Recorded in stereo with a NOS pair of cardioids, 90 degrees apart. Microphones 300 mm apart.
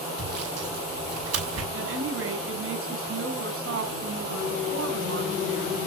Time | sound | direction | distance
0.2 | sawing | 55° right | 7 m
1.7 | a woman speaking | 45° right | 9 m